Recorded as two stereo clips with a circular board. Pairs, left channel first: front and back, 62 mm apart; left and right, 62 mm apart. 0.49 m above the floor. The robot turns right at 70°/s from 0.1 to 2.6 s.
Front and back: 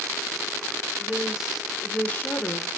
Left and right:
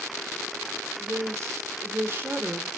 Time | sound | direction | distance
1.0 | a woman speaking | 135° right | 1.6 m